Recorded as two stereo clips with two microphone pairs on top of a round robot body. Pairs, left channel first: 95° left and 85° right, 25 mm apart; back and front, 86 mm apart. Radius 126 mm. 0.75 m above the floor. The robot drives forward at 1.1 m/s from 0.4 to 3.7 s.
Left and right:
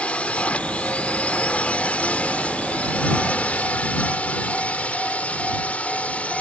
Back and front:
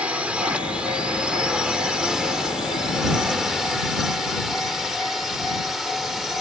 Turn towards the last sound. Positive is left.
turn(degrees=90)